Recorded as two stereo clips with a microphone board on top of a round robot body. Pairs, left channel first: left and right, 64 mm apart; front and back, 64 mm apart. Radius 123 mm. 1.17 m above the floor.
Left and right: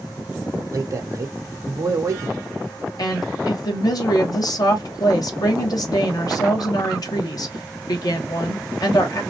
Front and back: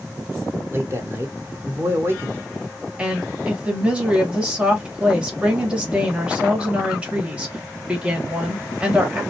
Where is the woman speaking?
105° left, 1.6 m.